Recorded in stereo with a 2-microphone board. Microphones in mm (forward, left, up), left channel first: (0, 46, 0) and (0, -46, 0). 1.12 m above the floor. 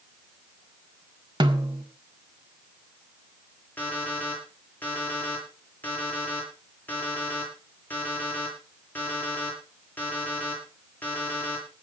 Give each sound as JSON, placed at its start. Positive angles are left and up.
{"t": 1.4, "sound": "a snare drum", "side_deg": -55, "distance_m": 1.8}
{"t": 3.8, "sound": "an alarm clock", "side_deg": 20, "distance_m": 9.5}